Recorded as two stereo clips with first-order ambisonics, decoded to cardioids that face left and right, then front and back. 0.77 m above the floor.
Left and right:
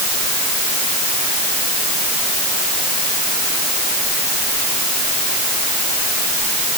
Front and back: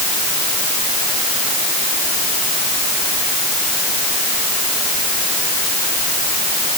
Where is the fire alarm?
I don't hear a fire alarm.